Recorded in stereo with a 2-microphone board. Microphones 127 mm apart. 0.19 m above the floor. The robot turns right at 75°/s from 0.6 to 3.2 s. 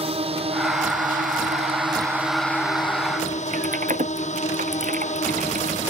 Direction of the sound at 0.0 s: 135° right.